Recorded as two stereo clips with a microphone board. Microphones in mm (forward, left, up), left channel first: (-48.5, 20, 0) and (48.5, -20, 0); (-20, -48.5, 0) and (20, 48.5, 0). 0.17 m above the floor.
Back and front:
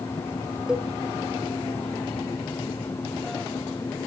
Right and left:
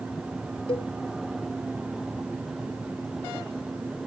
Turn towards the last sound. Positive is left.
turn(degrees=-105)